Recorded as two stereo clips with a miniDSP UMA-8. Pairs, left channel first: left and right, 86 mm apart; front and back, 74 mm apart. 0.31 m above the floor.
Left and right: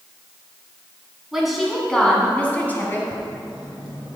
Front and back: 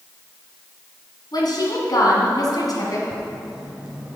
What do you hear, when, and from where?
1.3 s a woman speaking: 5° right, 2.5 m; by 3.0 s 30° left, 2.5 m
3.1 s writing: 105° left, 1.8 m